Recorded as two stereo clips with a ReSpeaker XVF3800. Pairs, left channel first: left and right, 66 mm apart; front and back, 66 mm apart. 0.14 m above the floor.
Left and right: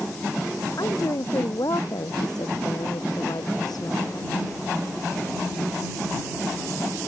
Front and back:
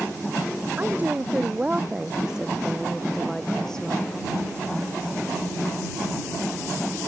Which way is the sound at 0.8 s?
115° left.